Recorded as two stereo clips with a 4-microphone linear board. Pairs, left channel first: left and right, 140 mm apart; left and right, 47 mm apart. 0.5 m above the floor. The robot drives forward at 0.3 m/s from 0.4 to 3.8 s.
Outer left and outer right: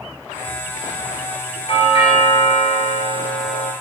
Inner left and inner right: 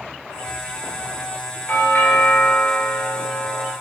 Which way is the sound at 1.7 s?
45° left (ahead or behind).